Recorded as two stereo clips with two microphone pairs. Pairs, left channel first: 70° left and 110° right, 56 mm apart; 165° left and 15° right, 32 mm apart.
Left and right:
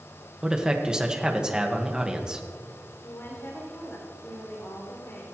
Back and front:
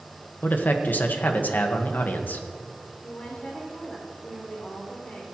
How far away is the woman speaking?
About 6 m.